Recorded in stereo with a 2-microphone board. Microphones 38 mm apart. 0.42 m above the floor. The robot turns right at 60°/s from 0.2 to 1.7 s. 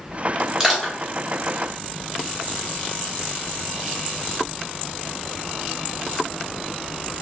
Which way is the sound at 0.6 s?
10° right (ahead or behind).